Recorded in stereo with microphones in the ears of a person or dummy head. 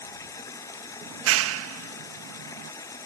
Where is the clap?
85° right.